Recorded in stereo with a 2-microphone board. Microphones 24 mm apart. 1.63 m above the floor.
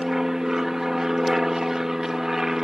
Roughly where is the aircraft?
Centre.